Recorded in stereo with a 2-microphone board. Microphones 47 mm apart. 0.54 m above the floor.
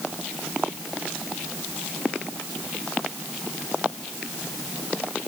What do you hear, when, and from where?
Only background noise.